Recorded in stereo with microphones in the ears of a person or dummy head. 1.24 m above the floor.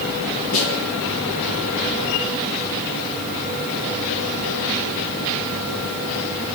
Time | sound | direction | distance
0.5 | a snare drum | 80° left | 7.5 m